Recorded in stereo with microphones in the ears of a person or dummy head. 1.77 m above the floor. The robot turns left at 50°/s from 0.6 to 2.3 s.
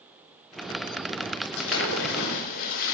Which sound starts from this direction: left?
A splash, at 1.6 s.